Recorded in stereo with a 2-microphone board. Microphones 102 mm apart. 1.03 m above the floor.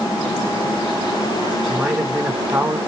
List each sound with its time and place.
1.6 s a man speaking: 15° right (ahead or behind), 1.0 m